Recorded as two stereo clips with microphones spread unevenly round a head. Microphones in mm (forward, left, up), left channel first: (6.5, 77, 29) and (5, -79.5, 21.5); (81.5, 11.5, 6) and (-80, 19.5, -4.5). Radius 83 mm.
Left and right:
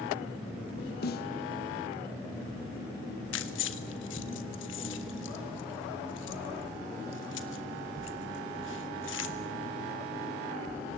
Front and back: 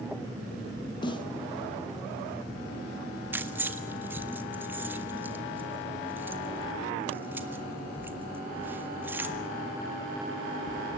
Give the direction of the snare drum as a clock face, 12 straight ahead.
10 o'clock.